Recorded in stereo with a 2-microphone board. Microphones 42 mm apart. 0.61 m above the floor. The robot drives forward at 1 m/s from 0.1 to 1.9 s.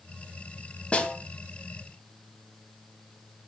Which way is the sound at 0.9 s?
30° left (ahead or behind).